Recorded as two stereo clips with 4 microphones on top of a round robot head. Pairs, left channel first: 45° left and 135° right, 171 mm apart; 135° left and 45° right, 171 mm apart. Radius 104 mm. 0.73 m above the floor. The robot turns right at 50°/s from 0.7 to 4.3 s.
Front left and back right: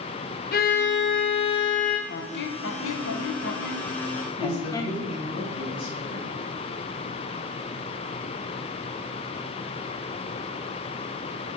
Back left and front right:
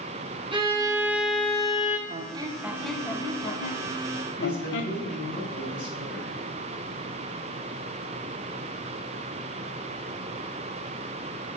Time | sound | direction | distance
0.5 | a violin | 15° left | 1.9 m
2.1 | a squeak | 5° left | 0.8 m
4.4 | a woman speaking | 110° left | 4.5 m